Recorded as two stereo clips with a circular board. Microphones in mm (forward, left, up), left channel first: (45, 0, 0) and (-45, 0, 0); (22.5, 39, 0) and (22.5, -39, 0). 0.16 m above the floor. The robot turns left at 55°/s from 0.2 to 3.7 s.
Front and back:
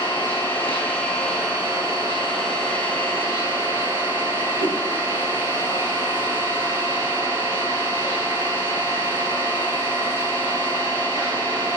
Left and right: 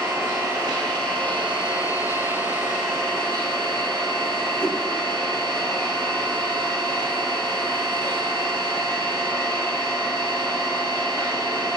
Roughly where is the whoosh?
Behind.